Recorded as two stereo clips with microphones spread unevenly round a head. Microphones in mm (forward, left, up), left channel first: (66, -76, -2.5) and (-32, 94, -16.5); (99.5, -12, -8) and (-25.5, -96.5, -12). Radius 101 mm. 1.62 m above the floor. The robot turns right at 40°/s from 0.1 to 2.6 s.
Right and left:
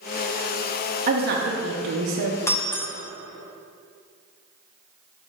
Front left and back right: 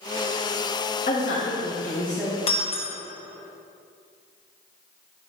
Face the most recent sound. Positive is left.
turn(degrees=15)